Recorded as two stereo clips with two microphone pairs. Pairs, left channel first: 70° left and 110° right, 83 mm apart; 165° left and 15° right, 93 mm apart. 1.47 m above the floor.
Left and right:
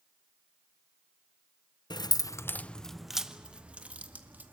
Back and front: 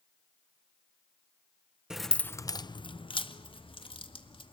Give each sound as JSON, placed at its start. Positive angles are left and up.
{"t": 1.9, "sound": "keys jangling", "azimuth_deg": 65, "distance_m": 0.7}